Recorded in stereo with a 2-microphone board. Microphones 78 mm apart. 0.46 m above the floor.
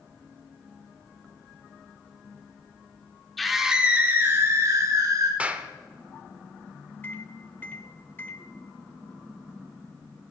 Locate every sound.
3.4 s a scream: centre (ahead or behind), 1.3 m; by 5.3 s 50° right (ahead or behind), 1.9 m
5.4 s a clap: 20° right (ahead or behind), 0.8 m
7.0 s a microwave: 25° left (ahead or behind), 1.1 m